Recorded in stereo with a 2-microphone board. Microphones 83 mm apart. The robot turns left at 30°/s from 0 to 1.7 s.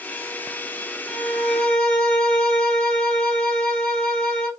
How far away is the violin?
About 1.8 m.